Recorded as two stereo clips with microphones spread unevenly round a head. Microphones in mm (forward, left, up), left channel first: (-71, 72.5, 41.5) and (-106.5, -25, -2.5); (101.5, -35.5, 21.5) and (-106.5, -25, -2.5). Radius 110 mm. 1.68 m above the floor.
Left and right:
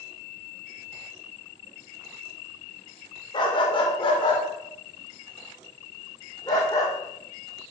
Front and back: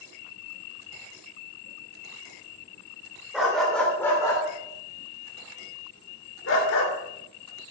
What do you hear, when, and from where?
3.3 s a dog barking: 85° left, 2.5 m; by 6.9 s 10° left, 2.5 m